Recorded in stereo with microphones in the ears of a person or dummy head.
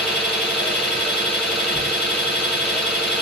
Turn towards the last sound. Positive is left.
turn(degrees=0)  # may be behind; listen again after turning